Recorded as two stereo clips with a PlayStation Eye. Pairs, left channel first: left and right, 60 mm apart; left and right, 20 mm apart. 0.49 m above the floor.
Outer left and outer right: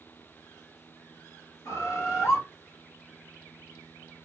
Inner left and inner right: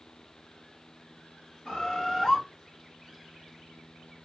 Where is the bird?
55° left (ahead or behind), 1.0 m.